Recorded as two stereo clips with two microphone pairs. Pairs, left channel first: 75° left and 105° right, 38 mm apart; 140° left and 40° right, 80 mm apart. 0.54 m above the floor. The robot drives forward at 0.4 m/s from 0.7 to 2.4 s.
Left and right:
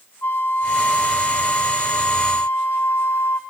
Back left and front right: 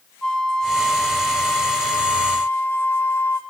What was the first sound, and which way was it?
A flute, 60° left.